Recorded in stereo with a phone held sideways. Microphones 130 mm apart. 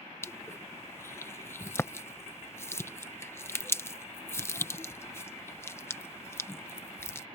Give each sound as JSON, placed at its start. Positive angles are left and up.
{"t": 0.2, "sound": "crushing", "side_deg": 20}